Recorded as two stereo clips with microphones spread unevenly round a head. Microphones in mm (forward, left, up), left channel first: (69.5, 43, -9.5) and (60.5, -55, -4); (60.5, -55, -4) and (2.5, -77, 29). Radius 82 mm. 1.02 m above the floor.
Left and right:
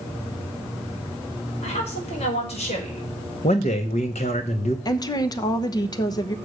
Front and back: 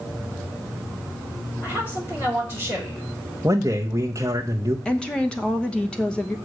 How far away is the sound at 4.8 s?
About 1.0 m.